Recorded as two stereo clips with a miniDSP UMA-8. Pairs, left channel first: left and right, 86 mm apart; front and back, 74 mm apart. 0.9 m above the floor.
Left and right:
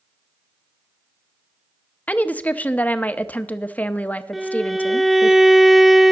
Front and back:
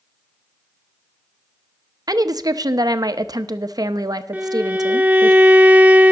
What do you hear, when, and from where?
2.1 s a woman speaking: 160° left, 0.7 m
4.3 s a violin: 175° right, 0.6 m